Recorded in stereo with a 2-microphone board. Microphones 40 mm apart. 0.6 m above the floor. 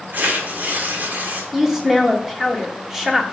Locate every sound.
0.1 s tearing paper: 50° right (ahead or behind), 1.5 m
1.5 s a woman speaking: 10° right (ahead or behind), 1.3 m